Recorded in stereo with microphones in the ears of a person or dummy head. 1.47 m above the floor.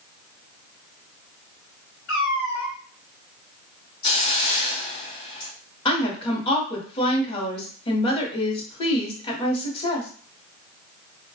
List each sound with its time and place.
2.1 s a cat meowing: 65° left (ahead or behind), 1.5 m
4.0 s a hiss: 30° left (ahead or behind), 0.9 m
5.8 s a woman speaking: 25° left (ahead or behind), 0.8 m